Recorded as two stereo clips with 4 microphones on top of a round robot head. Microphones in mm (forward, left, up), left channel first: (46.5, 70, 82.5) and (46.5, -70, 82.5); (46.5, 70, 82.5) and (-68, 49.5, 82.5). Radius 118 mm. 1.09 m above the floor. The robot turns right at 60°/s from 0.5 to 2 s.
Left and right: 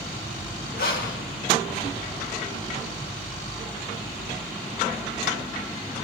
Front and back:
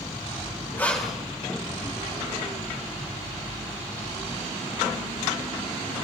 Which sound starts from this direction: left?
Breathing, at 0.8 s.